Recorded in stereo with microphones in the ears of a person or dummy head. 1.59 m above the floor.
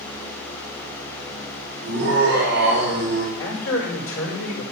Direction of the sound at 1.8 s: 60° right (ahead or behind).